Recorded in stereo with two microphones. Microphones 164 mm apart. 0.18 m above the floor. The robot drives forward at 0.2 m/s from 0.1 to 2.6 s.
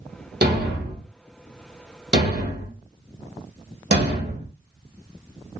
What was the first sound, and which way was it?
A thud, 75° right (ahead or behind).